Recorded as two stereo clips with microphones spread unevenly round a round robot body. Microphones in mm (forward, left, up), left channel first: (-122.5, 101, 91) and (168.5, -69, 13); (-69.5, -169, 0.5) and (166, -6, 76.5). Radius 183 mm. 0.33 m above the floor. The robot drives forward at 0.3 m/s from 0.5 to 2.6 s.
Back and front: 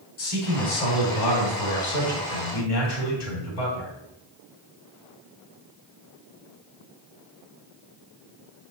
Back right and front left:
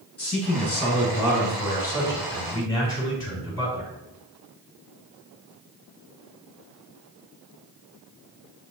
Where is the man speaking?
135° left, 3 m; by 3.9 s 145° left, 3.5 m.